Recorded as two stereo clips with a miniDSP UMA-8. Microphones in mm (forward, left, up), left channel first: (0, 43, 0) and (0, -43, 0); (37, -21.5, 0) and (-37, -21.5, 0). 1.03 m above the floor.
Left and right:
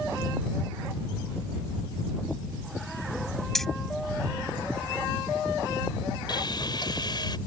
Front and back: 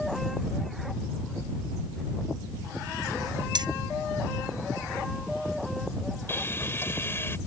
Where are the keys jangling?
175° left.